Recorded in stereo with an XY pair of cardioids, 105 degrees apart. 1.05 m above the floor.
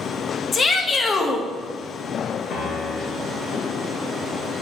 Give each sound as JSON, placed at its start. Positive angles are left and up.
{"t": 0.5, "sound": "a shout", "azimuth_deg": 40, "distance_m": 1.2}
{"t": 2.5, "sound": "a piano", "azimuth_deg": 65, "distance_m": 3.0}